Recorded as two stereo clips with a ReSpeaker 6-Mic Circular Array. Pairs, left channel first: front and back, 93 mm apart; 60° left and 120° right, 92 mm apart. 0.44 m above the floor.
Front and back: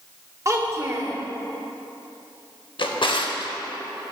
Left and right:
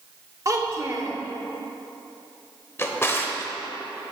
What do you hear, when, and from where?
0.5 s a child speaking: 145° right, 0.8 m
2.8 s a drawer: straight ahead, 0.6 m